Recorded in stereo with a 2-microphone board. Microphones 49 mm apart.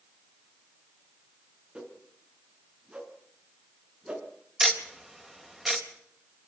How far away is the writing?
No writing in this recording.